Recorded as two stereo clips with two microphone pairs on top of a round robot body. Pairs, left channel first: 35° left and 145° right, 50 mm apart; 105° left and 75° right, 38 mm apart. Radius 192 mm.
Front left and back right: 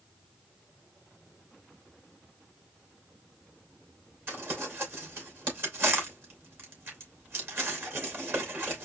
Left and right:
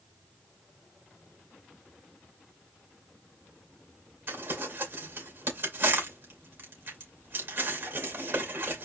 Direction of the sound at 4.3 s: 90° right.